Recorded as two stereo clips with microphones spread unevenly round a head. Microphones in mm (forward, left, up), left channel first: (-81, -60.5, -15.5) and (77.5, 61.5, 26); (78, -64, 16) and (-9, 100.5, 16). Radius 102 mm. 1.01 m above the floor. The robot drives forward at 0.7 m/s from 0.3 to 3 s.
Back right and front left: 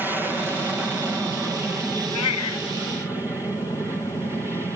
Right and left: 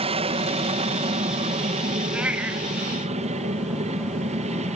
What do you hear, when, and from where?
0.0 s an aircraft: 130° left; by 4.8 s 125° left
2.1 s a cat meowing: 155° right; by 2.7 s 160° right